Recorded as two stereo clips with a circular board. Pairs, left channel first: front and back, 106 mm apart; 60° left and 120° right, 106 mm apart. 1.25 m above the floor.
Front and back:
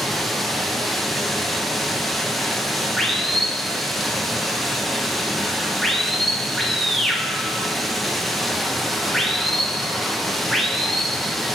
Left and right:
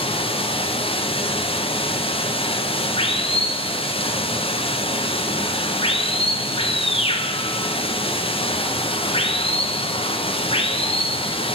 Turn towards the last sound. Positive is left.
turn(degrees=90)